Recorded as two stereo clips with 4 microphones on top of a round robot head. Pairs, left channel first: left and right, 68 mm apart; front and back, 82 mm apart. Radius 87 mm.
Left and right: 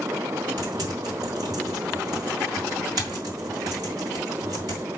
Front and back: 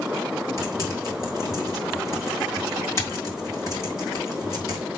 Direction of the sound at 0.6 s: 55° right.